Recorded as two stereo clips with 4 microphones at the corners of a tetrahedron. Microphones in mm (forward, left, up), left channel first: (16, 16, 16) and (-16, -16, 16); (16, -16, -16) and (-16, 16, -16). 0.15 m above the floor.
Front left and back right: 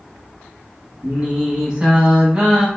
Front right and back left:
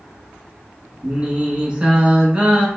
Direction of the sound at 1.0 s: 175° left.